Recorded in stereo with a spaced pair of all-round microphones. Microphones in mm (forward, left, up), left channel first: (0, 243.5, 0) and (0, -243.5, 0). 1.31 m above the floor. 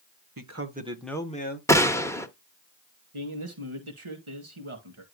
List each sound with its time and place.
0.4 s a man speaking: 45° right (ahead or behind), 1.2 m; by 1.6 s 20° left (ahead or behind), 1.8 m
1.7 s a gunshot: 5° left (ahead or behind), 1.0 m
3.1 s a man speaking: 85° right, 2 m